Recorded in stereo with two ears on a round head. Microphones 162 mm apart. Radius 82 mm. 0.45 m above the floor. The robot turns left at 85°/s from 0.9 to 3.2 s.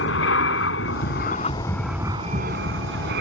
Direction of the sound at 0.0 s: 80° left.